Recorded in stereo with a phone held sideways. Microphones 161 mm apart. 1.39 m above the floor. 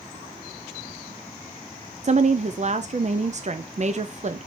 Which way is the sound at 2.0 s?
45° right (ahead or behind).